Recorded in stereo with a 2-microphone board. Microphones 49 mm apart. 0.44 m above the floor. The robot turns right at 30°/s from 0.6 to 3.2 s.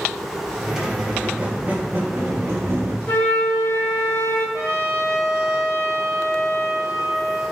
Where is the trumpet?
55° right (ahead or behind), 1.0 m.